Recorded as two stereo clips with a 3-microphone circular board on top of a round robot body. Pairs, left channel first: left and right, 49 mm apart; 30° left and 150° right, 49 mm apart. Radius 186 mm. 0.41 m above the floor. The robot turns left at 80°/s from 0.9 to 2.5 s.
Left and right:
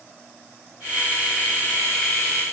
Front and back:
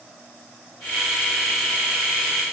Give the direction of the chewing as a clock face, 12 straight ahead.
No chewing in this recording.